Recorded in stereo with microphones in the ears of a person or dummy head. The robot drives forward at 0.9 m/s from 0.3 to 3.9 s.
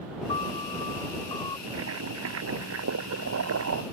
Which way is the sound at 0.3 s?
30° left (ahead or behind).